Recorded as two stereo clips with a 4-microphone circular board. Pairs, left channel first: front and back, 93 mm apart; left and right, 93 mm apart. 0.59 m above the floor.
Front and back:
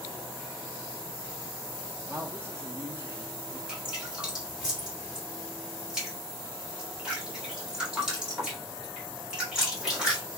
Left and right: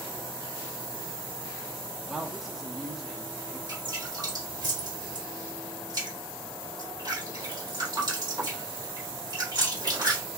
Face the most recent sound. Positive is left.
turn(degrees=-100)